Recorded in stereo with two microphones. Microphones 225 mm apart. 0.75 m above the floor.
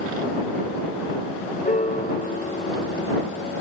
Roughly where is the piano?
Left.